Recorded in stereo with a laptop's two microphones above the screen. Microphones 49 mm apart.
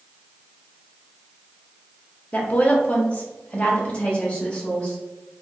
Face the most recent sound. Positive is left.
turn(degrees=25)  # may be behind; listen again after turning